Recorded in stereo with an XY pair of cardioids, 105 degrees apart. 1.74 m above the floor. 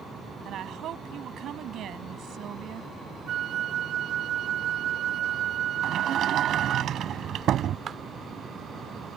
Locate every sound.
0.5 s a woman speaking: 65° right
3.3 s a flute: 65° right
5.8 s a sliding door: 60° right
7.9 s a clap: 55° right